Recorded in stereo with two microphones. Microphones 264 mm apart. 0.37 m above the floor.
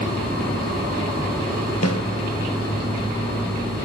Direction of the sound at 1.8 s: 70° left (ahead or behind).